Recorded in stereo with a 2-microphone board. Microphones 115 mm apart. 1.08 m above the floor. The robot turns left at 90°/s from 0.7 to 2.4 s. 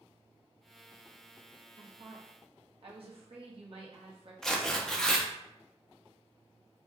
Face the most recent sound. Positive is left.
turn(degrees=5)  # may be behind; listen again after turning